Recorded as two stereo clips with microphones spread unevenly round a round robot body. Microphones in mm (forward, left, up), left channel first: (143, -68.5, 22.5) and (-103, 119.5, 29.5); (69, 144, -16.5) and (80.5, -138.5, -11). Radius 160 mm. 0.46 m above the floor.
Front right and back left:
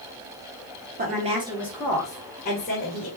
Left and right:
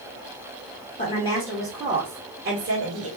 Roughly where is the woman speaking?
Behind left.